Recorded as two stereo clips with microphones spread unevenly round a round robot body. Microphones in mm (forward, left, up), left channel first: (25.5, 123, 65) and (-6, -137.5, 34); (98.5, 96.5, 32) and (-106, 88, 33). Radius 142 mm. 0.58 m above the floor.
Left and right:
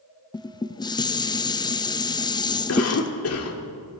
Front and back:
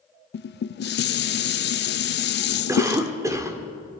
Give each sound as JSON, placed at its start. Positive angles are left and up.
{"t": 0.3, "sound": "dishes clattering", "azimuth_deg": 5, "distance_m": 0.7}
{"t": 2.7, "sound": "a cough", "azimuth_deg": 110, "distance_m": 2.0}